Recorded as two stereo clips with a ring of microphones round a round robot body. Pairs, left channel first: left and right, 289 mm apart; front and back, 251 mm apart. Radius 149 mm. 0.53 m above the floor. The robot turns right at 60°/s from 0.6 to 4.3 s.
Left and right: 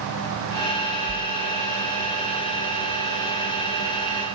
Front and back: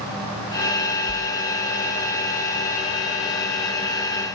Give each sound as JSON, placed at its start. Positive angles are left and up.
{"t": 1.1, "sound": "a whoosh", "azimuth_deg": -170, "distance_m": 1.0}